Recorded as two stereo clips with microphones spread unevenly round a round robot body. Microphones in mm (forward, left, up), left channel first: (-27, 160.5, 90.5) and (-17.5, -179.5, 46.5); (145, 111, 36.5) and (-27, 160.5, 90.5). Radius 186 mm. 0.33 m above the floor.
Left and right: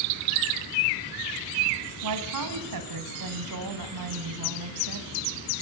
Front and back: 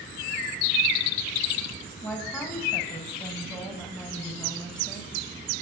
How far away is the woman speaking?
About 3 m.